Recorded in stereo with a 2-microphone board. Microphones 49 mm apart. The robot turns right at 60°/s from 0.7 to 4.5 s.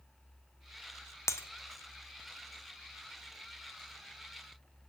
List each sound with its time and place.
1.3 s breaking glass: 75° left (ahead or behind), 0.6 m; by 1.5 s 65° left (ahead or behind), 0.6 m